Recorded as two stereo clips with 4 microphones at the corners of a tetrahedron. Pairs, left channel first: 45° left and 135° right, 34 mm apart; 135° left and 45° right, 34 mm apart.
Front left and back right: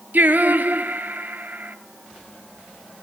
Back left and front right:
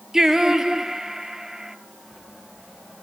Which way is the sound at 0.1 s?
120° right.